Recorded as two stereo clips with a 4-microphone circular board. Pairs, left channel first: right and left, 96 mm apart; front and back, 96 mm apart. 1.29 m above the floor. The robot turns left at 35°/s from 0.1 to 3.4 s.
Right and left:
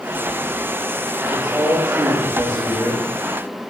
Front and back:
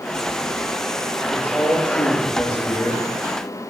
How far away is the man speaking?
About 2.5 m.